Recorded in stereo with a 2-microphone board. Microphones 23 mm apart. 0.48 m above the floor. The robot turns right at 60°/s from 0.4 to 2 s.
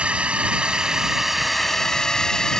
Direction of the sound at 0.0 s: 65° right.